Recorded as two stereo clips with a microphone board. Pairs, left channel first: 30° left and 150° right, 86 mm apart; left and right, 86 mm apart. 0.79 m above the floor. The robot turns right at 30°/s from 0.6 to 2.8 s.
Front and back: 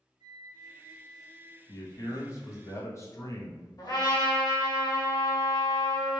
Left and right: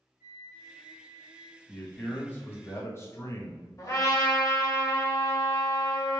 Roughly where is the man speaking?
Ahead.